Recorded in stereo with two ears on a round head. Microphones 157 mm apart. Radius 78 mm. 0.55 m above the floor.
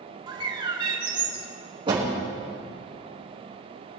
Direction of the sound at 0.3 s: 25° right (ahead or behind).